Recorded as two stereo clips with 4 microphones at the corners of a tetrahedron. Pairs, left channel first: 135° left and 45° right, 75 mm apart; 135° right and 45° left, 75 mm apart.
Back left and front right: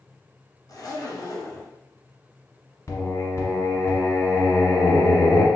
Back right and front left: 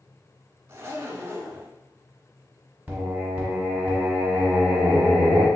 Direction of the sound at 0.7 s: 105° left.